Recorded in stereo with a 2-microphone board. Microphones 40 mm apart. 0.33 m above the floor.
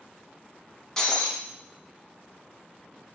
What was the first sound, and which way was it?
Breaking glass, 10° left (ahead or behind).